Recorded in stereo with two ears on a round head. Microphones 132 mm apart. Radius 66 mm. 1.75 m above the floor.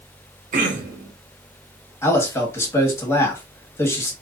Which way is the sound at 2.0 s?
20° left (ahead or behind).